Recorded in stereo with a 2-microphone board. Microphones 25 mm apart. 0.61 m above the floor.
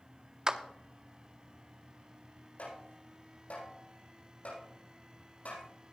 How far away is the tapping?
About 8.5 m.